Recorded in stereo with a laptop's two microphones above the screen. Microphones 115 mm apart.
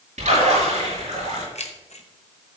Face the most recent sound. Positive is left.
turn(degrees=60)  # may be behind; listen again after turning